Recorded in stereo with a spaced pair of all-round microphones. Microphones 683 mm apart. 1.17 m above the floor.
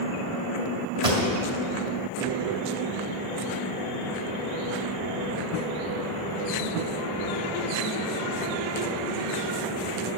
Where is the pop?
65° right (ahead or behind), 2 m.